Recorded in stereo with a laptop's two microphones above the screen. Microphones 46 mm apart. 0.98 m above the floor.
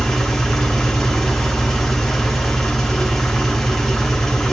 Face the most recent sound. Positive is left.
turn(degrees=10)  # may be behind; listen again after turning